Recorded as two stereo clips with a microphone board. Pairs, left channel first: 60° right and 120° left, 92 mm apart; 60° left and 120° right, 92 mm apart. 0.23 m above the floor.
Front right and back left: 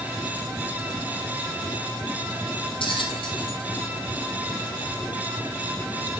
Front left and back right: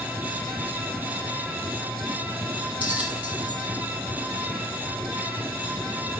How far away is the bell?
About 2.5 m.